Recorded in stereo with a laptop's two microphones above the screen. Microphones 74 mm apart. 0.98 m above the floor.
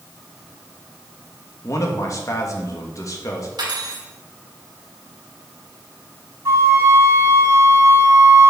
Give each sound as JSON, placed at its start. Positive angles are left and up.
{"t": 1.6, "sound": "a man speaking", "side_deg": 45, "distance_m": 1.6}
{"t": 3.6, "sound": "cutlery clinking", "side_deg": -75, "distance_m": 2.0}
{"t": 6.5, "sound": "a flute", "side_deg": -40, "distance_m": 2.5}